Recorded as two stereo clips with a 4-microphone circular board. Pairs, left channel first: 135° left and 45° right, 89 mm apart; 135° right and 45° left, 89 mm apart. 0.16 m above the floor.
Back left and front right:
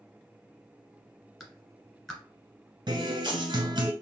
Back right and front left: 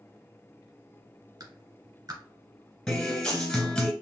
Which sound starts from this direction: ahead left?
A clap, at 1.4 s.